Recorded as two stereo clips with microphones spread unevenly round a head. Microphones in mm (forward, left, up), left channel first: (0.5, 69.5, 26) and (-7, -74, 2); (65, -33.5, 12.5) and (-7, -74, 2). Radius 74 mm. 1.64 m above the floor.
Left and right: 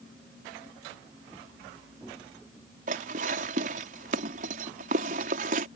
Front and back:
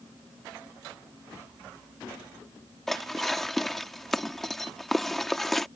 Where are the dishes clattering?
55° right.